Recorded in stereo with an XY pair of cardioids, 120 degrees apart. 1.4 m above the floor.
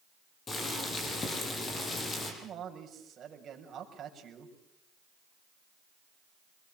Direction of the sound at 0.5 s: 30° left.